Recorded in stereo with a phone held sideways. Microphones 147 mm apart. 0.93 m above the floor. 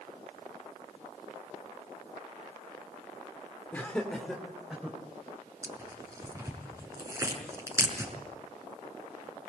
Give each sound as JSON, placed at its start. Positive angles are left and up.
{"t": 3.7, "sound": "laughter", "side_deg": 10, "distance_m": 2.5}
{"t": 5.6, "sound": "tearing paper", "side_deg": -20, "distance_m": 5.5}